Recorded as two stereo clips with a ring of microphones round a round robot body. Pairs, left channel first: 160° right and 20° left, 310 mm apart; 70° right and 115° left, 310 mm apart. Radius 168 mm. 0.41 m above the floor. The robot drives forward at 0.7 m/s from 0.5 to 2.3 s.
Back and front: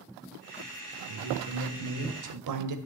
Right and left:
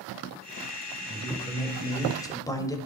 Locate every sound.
1.1 s a man speaking: 5° left, 2.5 m; by 2.8 s 10° left, 1.8 m